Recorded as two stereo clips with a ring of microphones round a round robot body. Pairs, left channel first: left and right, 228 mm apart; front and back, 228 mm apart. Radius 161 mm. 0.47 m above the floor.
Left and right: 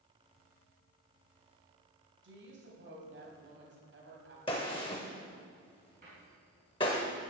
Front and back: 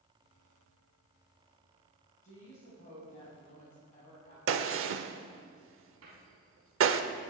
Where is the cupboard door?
150° right, 4 m.